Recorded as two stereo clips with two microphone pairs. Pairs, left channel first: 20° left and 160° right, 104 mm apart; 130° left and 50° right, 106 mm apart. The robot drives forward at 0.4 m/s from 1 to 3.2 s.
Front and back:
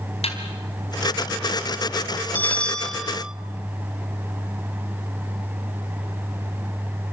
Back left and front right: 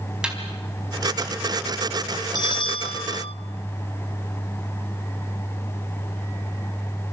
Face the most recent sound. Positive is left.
turn(degrees=115)